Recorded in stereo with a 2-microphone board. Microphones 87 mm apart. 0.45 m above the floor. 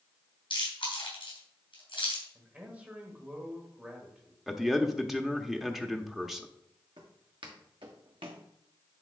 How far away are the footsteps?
About 3 m.